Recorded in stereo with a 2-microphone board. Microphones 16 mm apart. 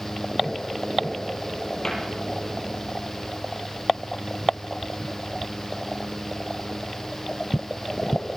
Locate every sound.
1.8 s a cupboard door: 30° left (ahead or behind), 6 m